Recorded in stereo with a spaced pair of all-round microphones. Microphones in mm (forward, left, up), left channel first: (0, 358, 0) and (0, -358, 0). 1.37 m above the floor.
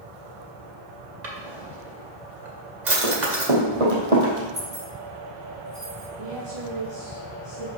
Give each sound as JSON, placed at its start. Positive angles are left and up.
{"t": 1.2, "sound": "a drawer", "side_deg": -65, "distance_m": 2.0}
{"t": 3.0, "sound": "running footsteps", "side_deg": -50, "distance_m": 3.5}
{"t": 4.5, "sound": "keys jangling", "side_deg": -75, "distance_m": 5.0}
{"t": 6.2, "sound": "a woman speaking", "side_deg": -45, "distance_m": 2.0}